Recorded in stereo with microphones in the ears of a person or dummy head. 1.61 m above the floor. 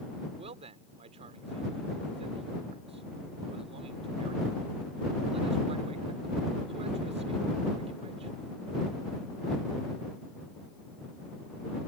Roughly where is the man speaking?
Right.